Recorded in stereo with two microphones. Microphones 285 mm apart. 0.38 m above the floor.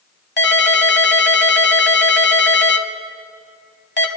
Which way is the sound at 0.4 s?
40° left (ahead or behind).